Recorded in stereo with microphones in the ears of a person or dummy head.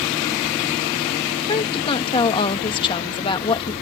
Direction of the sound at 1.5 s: 30° left (ahead or behind).